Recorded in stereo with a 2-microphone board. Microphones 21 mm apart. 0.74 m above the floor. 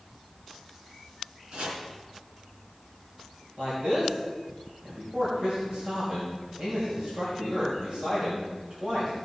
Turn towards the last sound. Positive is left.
turn(degrees=-55)  # may be behind; listen again after turning